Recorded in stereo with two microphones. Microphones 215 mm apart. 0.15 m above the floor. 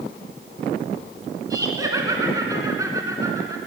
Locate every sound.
1.5 s laughter: 15° right (ahead or behind), 2 m